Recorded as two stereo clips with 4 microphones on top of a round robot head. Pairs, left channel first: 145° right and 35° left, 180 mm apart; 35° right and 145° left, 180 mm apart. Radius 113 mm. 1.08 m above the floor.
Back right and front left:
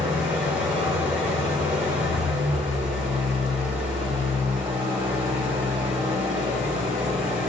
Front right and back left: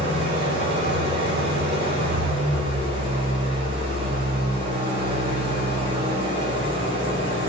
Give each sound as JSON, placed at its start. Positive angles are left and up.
{"t": 0.0, "sound": "an engine running", "azimuth_deg": 115, "distance_m": 4.0}